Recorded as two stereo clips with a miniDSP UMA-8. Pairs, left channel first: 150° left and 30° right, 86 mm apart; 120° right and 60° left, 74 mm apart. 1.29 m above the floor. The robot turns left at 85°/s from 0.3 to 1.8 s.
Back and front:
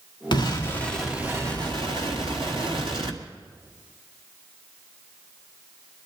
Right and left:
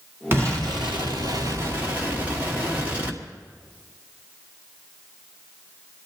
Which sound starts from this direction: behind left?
An explosion, at 0.3 s.